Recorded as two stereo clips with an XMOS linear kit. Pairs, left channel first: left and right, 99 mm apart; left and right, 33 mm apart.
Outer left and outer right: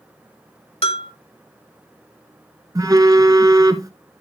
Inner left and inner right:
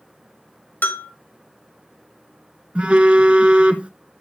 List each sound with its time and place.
0.8 s a bell: 75° left (ahead or behind), 1.3 m
2.8 s a phone buzzing: 35° right (ahead or behind), 0.9 m